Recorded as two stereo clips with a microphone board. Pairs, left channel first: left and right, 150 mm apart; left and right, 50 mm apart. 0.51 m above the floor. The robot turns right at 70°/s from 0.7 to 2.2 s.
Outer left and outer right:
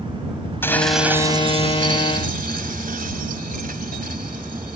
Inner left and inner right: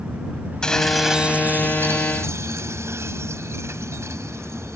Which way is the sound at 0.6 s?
165° left.